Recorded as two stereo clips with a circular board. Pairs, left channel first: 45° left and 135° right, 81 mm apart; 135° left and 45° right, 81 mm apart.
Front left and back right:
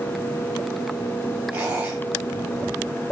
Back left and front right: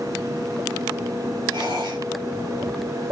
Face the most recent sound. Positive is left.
turn(degrees=-65)